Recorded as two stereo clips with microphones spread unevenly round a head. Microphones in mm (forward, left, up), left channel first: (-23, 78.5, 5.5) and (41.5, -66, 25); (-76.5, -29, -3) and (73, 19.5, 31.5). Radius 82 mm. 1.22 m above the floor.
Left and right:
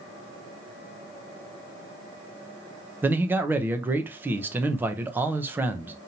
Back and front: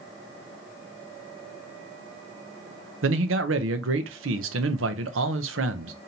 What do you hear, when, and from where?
3.0 s a man speaking: 15° left, 0.7 m